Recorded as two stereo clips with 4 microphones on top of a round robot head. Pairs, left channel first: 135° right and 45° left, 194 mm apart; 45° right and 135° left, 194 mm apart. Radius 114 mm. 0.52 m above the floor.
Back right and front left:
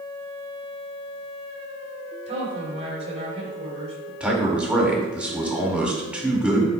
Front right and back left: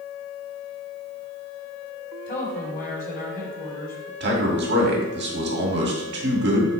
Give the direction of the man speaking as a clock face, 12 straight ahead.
8 o'clock.